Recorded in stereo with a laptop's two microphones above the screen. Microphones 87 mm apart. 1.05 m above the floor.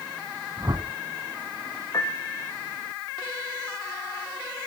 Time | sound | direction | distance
0.6 | a whoosh | 40° right (ahead or behind) | 2 m
1.9 | a piano | 40° left (ahead or behind) | 1.5 m